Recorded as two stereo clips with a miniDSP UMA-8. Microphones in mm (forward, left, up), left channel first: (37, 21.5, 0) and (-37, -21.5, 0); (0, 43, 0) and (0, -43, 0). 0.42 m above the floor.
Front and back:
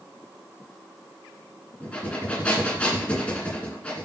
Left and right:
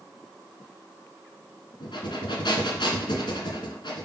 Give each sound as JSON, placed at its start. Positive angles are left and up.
{"t": 1.8, "sound": "breathing", "azimuth_deg": 105, "distance_m": 1.8}